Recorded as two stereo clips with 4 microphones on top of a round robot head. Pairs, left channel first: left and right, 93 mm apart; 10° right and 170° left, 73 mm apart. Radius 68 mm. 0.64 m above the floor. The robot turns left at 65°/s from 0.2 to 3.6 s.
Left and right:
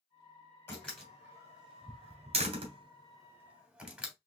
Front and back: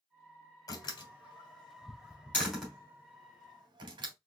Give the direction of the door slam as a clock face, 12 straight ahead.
11 o'clock.